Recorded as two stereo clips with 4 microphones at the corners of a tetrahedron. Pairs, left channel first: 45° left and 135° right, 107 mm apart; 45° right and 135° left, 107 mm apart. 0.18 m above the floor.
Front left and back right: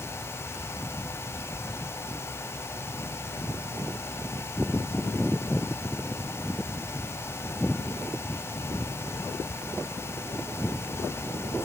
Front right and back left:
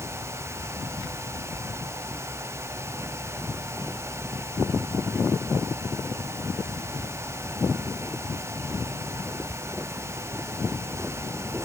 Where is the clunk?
No clunk in this recording.